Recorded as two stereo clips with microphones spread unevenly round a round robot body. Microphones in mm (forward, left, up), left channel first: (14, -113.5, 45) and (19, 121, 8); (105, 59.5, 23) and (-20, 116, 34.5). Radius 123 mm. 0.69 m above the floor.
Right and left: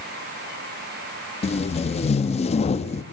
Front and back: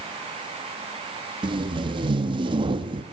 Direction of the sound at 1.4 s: 155° right.